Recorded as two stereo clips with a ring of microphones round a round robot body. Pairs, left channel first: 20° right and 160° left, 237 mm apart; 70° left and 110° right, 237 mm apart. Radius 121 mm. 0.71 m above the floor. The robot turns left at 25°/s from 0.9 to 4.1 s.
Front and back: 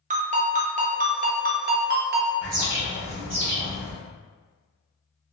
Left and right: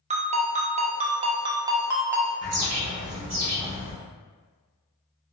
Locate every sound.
0.1 s a ringtone: 160° right, 0.6 m; by 2.3 s 165° left, 0.6 m
2.4 s a bird: 125° right, 1.4 m; by 3.9 s 160° right, 1.4 m